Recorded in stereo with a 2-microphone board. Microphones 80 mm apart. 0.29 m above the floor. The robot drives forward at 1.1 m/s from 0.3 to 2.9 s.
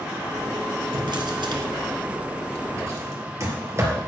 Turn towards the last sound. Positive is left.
turn(degrees=-35)  # may be behind; listen again after turning